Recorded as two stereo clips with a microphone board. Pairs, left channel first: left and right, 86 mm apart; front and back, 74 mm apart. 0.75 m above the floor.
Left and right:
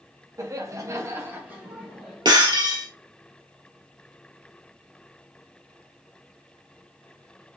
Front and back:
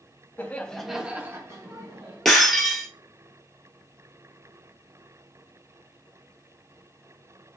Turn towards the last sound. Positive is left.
turn(degrees=-85)